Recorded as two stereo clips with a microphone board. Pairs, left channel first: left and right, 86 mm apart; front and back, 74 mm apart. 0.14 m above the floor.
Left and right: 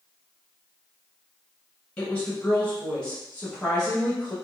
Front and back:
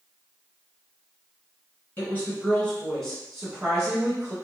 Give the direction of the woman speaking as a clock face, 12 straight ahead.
11 o'clock.